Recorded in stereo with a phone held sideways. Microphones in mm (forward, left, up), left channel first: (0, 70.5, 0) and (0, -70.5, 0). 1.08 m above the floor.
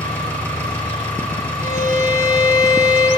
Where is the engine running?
15° left (ahead or behind), 5.5 m.